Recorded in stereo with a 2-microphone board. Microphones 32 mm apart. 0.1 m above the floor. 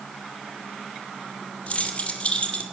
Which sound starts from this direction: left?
Keys jangling, at 1.7 s.